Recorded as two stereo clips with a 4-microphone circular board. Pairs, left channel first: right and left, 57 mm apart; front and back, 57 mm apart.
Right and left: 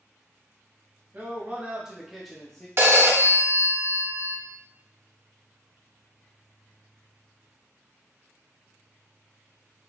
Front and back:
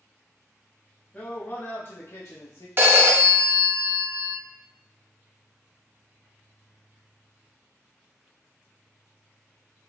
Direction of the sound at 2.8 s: 130° left.